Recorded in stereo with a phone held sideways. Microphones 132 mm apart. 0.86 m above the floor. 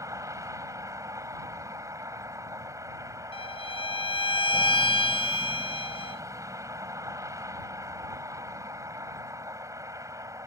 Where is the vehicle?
25° right (ahead or behind).